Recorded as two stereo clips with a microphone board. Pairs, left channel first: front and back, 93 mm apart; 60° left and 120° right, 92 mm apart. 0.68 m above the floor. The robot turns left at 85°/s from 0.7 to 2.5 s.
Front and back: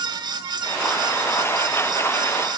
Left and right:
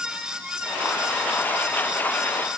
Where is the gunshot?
I don't hear a gunshot.